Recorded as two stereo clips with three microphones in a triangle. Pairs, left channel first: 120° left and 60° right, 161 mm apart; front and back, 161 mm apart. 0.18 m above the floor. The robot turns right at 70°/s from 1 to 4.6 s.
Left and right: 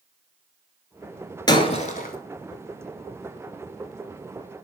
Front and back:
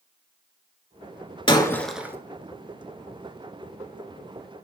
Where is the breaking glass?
60° left, 0.7 m; by 2.1 s 105° left, 0.7 m.